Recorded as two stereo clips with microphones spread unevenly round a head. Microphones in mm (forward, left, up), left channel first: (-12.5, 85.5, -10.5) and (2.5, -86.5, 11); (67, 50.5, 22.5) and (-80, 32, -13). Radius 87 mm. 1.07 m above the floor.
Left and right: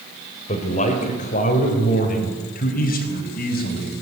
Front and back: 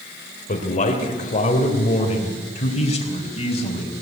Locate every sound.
0.5 s a man speaking: 40° left, 3.5 m; by 4.0 s 60° left, 5 m